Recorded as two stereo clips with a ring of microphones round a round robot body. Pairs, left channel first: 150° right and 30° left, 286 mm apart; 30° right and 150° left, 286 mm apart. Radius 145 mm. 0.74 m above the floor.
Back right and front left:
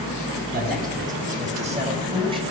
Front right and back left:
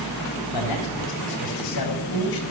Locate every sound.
0.5 s a man speaking: 30° right, 4.5 m; by 2.4 s 45° right, 3.5 m